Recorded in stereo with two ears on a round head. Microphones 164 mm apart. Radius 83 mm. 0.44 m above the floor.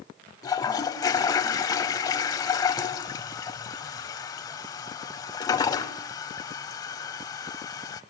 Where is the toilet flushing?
20° left (ahead or behind), 0.8 m.